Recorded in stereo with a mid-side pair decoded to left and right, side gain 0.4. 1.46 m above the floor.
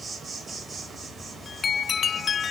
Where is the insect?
30° right, 4.5 m.